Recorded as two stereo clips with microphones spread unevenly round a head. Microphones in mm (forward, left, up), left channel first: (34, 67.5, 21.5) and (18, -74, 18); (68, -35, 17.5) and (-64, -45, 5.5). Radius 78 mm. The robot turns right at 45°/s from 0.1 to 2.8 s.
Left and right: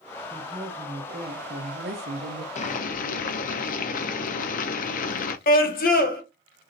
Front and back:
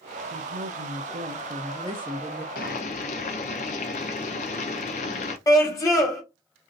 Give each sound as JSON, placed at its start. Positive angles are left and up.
{"t": 0.3, "sound": "a woman speaking", "azimuth_deg": 180, "distance_m": 0.6}
{"t": 2.5, "sound": "boiling", "azimuth_deg": 45, "distance_m": 0.6}
{"t": 5.5, "sound": "a scream", "azimuth_deg": 75, "distance_m": 1.3}